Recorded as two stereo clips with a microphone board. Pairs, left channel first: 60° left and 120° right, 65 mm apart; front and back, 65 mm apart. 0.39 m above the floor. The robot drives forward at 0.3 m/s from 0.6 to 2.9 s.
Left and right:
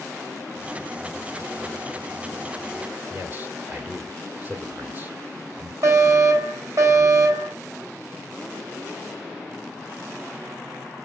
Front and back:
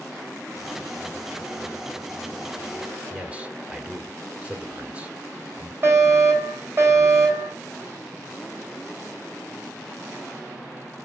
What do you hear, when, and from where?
3.1 s a man speaking: 130° right, 1.4 m
5.8 s a fire alarm: 140° right, 3 m